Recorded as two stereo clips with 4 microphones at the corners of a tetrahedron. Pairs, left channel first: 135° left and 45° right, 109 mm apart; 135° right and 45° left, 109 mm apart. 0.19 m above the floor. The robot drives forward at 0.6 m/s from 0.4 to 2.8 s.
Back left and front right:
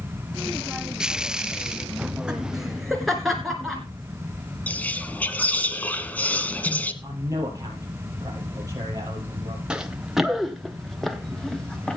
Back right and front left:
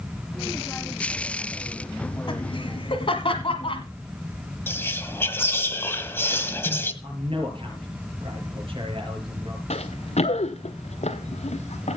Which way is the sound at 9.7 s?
125° right.